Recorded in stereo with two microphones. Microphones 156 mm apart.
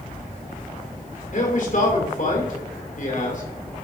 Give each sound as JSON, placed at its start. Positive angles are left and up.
{"t": 1.3, "sound": "a man speaking", "side_deg": 60, "distance_m": 2.5}